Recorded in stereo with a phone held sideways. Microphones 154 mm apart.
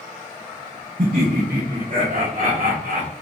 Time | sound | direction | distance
1.0 | laughter | 65° right (ahead or behind) | 0.6 m